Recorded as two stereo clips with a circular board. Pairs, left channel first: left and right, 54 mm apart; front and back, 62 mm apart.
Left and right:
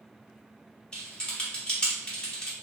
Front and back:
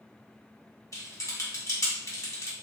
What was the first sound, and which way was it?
Typing on a keyboard, 20° left.